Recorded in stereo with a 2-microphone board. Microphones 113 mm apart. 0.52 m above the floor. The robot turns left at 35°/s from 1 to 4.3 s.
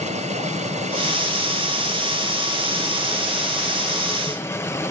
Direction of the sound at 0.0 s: 85° right.